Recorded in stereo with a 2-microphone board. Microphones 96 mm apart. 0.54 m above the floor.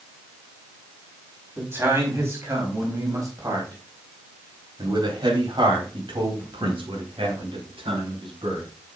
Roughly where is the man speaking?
Right.